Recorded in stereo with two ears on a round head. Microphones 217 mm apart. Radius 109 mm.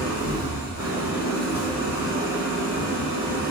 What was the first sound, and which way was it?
An engine running, 75° left (ahead or behind).